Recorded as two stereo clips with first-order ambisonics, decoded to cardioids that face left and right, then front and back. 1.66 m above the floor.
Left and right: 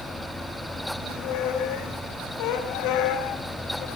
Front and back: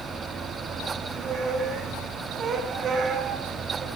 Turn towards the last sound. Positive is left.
turn(degrees=120)